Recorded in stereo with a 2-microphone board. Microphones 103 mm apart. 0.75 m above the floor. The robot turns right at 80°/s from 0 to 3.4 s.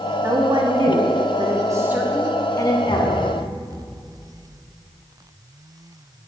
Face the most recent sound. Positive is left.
turn(degrees=-155)